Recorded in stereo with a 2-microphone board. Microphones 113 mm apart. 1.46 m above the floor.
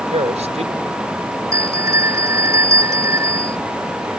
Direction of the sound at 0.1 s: 80° right.